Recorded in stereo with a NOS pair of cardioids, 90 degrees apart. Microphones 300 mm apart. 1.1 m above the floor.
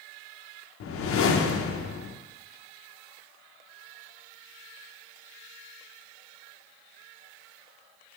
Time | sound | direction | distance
0.8 | a whoosh | 50° left | 0.6 m